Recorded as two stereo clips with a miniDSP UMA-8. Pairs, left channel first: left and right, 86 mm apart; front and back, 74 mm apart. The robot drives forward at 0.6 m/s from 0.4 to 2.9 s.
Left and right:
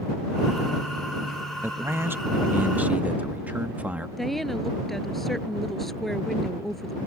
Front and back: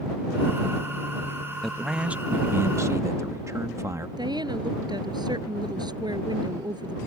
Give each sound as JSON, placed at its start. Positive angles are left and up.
{"t": 1.6, "sound": "a man speaking", "azimuth_deg": -85}
{"t": 4.2, "sound": "a woman speaking", "azimuth_deg": 180}